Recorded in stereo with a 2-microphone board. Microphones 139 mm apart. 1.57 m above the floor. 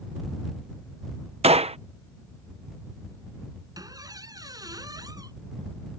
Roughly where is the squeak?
Right.